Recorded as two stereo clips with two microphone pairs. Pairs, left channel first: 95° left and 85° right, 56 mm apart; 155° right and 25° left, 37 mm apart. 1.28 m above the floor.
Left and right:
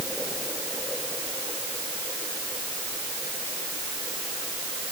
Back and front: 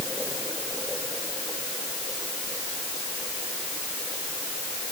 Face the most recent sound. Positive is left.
No sound to turn to.